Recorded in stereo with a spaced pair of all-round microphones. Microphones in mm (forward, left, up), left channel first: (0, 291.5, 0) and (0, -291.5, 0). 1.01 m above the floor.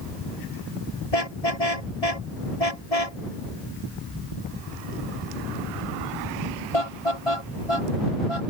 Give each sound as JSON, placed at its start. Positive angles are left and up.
{"t": 1.1, "sound": "a car horn", "side_deg": 85}